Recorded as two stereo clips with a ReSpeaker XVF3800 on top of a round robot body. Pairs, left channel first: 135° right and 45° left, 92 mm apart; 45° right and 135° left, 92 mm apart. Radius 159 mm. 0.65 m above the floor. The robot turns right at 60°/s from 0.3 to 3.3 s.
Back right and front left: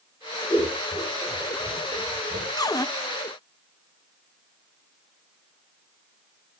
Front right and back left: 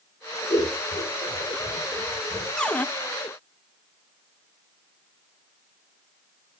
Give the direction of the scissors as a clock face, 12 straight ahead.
3 o'clock.